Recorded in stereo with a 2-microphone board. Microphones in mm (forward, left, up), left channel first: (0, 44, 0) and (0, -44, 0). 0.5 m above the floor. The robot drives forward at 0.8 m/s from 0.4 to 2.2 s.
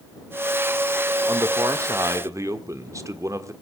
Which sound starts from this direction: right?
A man speaking, at 1.3 s.